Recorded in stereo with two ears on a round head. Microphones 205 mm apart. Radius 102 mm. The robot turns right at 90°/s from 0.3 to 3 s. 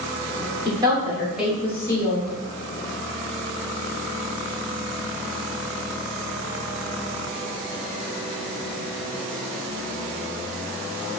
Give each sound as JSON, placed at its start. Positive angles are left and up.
{"t": 0.7, "sound": "a woman speaking", "side_deg": -20, "distance_m": 1.1}